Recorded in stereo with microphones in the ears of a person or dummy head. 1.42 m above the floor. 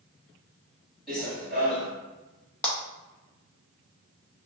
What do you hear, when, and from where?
1.1 s running footsteps: centre (ahead or behind), 1.8 m
2.6 s a clap: 5° left (ahead or behind), 0.5 m